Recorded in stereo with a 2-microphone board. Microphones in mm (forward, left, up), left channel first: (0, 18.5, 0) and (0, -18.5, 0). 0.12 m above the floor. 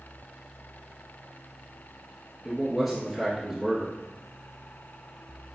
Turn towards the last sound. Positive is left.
turn(degrees=0)  # may be behind; listen again after turning